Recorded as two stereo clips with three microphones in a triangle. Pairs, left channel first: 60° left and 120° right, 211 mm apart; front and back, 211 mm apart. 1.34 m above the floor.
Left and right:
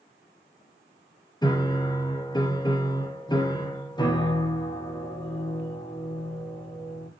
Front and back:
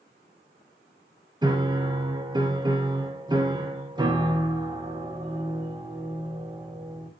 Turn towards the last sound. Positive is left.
turn(degrees=120)